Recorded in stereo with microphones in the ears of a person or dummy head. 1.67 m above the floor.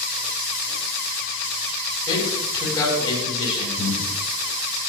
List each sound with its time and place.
2.1 s a man speaking: 35° left (ahead or behind), 9 m
3.8 s breathing: 65° left (ahead or behind), 3.5 m